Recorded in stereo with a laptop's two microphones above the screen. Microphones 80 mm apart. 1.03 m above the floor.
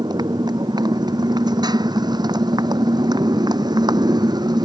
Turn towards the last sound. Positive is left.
turn(degrees=-60)  # may be behind; listen again after turning